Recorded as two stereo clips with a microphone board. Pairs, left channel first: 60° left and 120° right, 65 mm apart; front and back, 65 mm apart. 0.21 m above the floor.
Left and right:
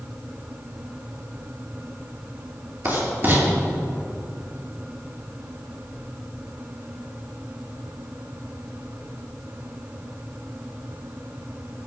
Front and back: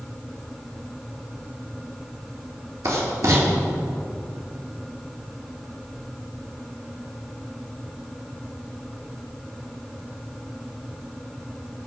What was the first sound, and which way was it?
Writing, 170° right.